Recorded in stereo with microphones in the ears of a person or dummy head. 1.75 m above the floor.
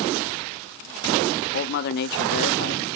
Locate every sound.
1.5 s a man speaking: 60° left (ahead or behind), 0.7 m